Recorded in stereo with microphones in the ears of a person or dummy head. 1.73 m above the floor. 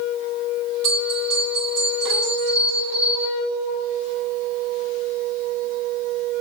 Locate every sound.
0.8 s a bell: centre (ahead or behind), 2.5 m